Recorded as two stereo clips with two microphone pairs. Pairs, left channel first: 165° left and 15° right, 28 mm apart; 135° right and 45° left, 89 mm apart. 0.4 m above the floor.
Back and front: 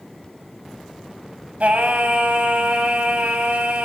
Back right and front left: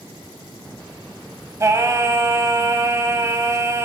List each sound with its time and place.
1.6 s singing: 10° right, 1.1 m